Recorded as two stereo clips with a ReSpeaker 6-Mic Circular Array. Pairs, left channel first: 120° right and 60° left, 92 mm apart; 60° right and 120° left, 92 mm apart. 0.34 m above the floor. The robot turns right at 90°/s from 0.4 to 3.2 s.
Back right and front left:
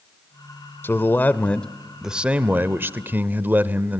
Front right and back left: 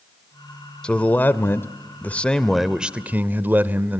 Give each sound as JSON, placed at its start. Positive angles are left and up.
{"t": 0.8, "sound": "a man speaking", "azimuth_deg": -125, "distance_m": 0.8}